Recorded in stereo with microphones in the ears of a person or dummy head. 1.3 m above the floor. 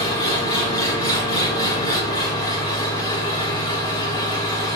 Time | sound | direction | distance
0.0 | an engine running | 25° left (ahead or behind) | 0.8 m